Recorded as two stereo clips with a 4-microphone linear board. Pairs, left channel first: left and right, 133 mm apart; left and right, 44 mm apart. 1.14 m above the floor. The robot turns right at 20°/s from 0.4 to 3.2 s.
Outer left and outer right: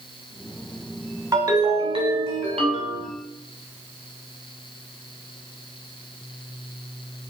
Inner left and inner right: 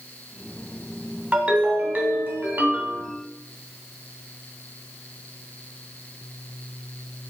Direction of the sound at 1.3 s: 150° right.